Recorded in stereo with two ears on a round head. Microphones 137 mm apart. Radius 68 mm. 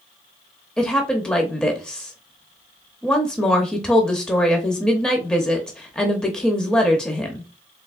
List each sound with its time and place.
0.8 s a woman speaking: 5° left (ahead or behind), 0.7 m